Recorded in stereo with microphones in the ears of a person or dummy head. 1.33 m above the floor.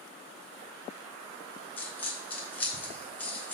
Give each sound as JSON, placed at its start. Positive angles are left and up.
{"t": 1.8, "sound": "a dropped coin", "side_deg": 10, "distance_m": 1.2}